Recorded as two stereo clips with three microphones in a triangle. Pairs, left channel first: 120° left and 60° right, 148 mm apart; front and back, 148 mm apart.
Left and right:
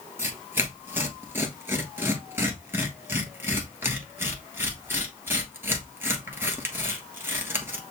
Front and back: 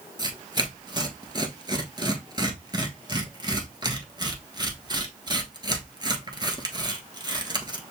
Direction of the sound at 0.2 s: 130° right.